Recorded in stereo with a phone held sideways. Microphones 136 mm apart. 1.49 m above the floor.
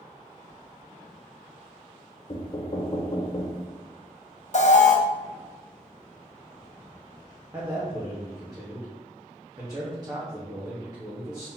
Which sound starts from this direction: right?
A man speaking, at 7.5 s.